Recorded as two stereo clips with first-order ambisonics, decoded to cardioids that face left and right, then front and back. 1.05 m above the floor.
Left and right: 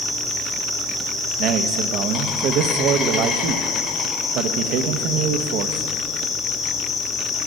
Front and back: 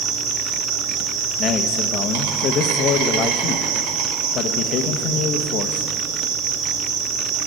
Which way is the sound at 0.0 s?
175° left.